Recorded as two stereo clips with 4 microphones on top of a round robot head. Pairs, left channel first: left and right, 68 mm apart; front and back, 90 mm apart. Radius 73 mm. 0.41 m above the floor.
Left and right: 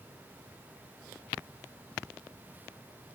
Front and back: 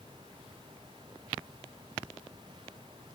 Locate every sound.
Only background noise.